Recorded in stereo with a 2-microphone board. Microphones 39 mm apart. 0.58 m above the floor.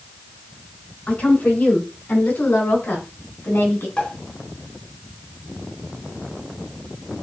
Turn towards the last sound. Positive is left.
turn(degrees=25)  # may be behind; listen again after turning